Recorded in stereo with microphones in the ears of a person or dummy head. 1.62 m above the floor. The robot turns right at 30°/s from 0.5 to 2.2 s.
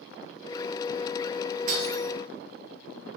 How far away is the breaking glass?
About 10 m.